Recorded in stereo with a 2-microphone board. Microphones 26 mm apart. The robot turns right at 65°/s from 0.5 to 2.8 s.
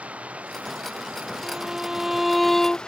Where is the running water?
110° right; by 2.9 s 35° left.